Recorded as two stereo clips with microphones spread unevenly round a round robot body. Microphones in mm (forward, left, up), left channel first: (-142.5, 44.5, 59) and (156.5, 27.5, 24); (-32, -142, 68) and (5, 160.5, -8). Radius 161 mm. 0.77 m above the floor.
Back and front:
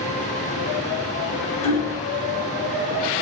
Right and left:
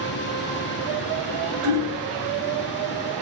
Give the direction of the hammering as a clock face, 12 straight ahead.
8 o'clock.